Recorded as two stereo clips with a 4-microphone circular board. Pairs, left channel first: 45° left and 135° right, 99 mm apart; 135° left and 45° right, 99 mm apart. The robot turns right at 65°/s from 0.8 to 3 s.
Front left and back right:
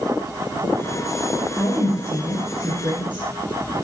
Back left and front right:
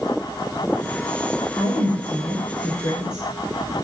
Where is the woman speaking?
105° left, 2 m; by 3.2 s 160° right, 2 m.